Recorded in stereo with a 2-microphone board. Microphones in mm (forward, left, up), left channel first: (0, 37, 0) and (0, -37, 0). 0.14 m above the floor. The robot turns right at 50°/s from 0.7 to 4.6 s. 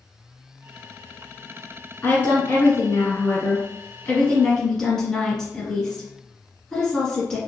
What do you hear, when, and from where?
2.0 s a woman speaking: 35° left, 1.3 m; by 7.4 s 165° left, 1.3 m